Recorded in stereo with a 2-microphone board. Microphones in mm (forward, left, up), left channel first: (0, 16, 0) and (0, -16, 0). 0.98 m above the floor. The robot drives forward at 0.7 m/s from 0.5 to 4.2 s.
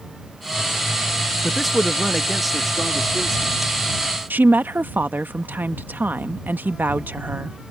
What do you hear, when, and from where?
1.4 s a man speaking: centre (ahead or behind)
4.3 s a woman speaking: 75° right (ahead or behind)